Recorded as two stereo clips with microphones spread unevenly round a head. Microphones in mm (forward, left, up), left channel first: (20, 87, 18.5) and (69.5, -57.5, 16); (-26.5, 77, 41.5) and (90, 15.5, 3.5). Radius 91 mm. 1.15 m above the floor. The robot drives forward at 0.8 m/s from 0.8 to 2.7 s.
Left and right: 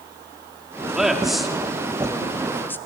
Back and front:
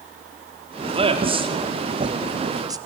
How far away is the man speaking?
About 3 m.